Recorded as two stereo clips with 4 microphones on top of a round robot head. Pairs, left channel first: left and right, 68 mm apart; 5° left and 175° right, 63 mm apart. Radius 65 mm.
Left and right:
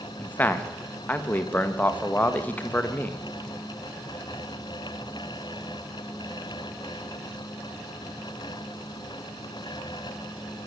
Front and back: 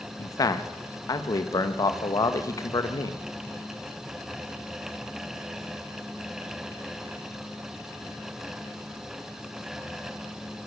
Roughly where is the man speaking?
Ahead left.